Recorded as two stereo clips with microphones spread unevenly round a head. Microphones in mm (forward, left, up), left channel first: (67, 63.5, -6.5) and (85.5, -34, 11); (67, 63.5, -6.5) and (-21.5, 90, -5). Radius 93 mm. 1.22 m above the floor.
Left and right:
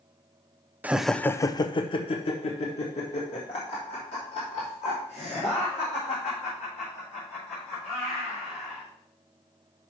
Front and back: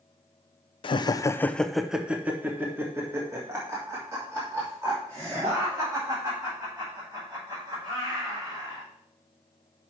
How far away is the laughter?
About 0.6 m.